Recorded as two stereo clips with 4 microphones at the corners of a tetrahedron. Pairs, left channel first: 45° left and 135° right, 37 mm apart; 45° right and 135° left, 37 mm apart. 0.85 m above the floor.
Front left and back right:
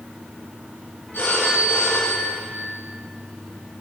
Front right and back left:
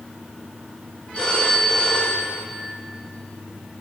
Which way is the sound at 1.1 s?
20° left.